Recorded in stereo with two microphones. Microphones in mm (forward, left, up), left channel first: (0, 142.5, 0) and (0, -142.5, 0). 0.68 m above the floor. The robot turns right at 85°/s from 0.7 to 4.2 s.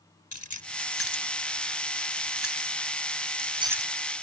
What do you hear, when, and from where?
0.3 s keys jangling: 85° left; by 3.9 s 5° left (ahead or behind)